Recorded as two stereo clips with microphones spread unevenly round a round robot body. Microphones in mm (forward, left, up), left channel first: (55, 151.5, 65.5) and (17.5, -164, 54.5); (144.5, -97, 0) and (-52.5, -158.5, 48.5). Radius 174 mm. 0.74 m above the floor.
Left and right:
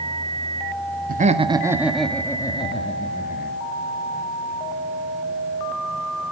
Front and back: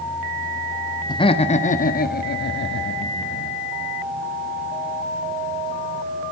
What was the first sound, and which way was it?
Laughter, 40° right.